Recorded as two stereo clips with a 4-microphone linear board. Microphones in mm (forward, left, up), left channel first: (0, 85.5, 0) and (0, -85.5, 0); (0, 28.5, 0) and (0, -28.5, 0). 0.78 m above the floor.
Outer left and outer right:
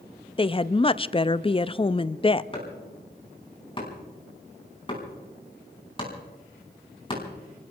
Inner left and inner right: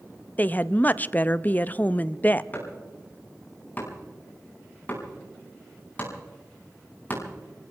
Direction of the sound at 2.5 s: 30° left (ahead or behind).